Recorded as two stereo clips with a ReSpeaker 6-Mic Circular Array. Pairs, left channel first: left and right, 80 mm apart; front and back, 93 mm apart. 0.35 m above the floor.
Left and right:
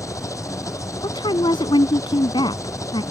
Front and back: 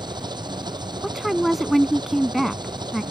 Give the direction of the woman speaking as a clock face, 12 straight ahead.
9 o'clock.